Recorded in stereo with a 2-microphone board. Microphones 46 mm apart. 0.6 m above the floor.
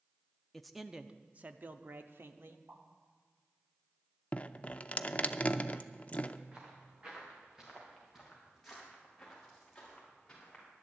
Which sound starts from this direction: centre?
A man speaking, at 0.5 s.